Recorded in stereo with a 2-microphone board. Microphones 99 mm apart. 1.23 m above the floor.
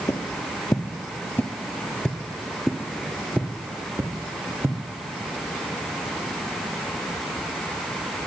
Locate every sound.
0.1 s footsteps: 35° left (ahead or behind), 1.5 m; by 4.8 s 25° right (ahead or behind), 1.9 m